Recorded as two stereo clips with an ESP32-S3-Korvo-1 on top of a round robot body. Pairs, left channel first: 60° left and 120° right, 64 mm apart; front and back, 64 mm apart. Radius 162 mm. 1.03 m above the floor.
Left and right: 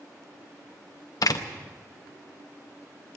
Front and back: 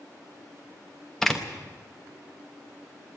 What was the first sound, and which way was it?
A door slam, 85° left.